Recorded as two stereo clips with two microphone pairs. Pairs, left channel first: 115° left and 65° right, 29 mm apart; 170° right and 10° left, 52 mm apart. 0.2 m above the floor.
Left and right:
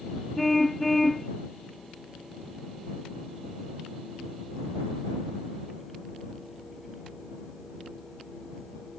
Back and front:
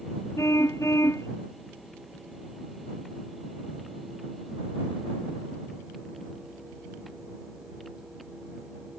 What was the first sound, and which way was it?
A car horn, 165° right.